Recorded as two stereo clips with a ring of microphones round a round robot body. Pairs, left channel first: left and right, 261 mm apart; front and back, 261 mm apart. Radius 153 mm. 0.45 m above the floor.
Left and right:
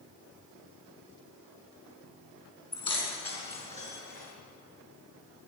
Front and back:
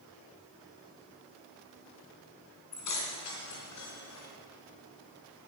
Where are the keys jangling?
15° left, 3.5 m; by 4.3 s 30° left, 5 m.